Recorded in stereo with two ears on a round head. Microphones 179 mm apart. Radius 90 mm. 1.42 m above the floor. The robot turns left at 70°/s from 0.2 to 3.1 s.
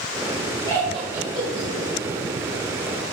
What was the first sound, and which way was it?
Laughter, 20° left (ahead or behind).